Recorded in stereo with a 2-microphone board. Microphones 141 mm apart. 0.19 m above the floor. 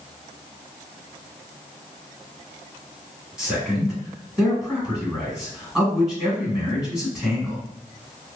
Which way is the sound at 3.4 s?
5° right (ahead or behind).